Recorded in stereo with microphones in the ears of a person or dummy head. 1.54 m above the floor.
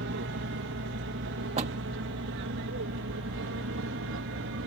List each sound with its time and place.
0.0 s an aircraft: 60° right (ahead or behind); by 4.7 s 65° right (ahead or behind)
1.6 s a door slam: 40° right (ahead or behind)